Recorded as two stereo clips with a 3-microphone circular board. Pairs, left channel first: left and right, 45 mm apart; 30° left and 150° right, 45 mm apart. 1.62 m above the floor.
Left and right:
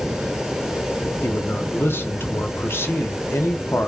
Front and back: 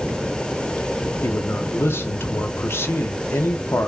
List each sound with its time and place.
1.2 s a man speaking: 55° left, 0.7 m